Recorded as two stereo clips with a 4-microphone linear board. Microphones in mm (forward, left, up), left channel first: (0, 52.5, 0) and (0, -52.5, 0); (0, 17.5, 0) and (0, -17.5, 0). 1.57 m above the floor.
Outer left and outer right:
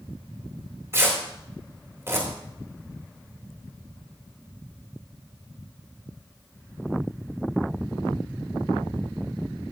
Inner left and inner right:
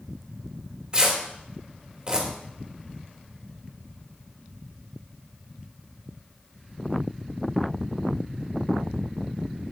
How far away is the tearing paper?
About 3 m.